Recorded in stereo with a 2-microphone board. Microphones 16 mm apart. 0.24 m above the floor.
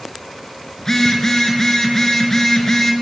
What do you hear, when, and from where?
0.8 s a phone buzzing: 30° left (ahead or behind), 4 m